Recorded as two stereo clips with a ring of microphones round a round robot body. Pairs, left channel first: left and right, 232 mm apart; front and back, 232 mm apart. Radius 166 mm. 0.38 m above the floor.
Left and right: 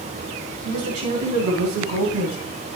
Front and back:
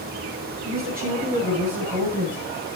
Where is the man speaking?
120° right, 4 m; by 2.4 s 115° right, 3 m.